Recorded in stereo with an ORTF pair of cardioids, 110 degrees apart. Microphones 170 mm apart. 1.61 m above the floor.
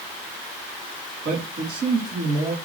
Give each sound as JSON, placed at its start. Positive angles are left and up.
{"t": 1.2, "sound": "a man speaking", "azimuth_deg": -60, "distance_m": 4.0}